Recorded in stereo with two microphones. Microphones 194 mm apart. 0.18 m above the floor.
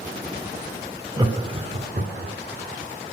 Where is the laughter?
20° right (ahead or behind), 1.4 m; by 2.4 s 55° right (ahead or behind), 2 m.